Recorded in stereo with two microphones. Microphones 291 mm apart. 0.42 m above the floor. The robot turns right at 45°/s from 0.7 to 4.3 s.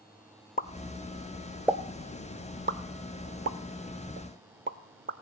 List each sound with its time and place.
0.6 s a pop: 30° left (ahead or behind), 0.5 m; by 5.1 s 40° right (ahead or behind), 0.5 m